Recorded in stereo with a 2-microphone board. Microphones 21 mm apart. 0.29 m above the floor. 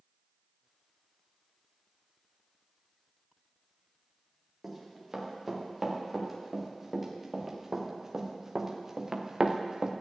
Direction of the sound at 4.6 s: 5° right (ahead or behind).